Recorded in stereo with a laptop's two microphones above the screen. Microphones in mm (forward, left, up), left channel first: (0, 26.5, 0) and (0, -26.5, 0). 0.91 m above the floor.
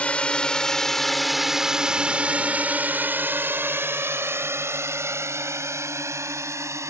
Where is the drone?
25° left (ahead or behind); by 6.9 s 75° right (ahead or behind).